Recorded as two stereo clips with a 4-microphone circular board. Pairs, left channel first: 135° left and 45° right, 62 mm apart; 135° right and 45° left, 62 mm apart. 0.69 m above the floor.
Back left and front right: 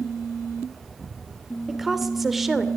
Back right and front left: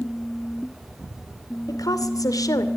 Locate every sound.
1.7 s a woman speaking: 130° right, 2.5 m